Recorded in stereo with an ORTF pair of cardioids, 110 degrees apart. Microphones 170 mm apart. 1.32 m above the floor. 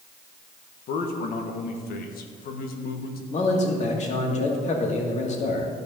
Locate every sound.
0.9 s a man speaking: 70° left, 1.5 m
3.3 s a man speaking: 45° left, 2.5 m